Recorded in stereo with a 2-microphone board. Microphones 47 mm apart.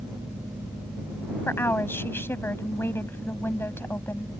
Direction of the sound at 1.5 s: 50° left (ahead or behind).